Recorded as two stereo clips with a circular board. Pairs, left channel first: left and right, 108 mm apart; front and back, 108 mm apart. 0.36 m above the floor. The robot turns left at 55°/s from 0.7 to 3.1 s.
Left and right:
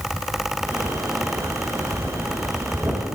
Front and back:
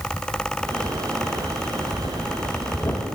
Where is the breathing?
30° left, 1.5 m; by 3.0 s 45° right, 1.5 m.